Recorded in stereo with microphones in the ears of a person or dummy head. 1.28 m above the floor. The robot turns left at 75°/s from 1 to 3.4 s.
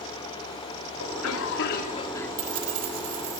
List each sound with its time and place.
1.0 s a cough: 105° left, 2.5 m; by 2.3 s 10° left, 2.5 m
2.4 s keys jangling: 45° right, 4 m; by 3.4 s 125° right, 4 m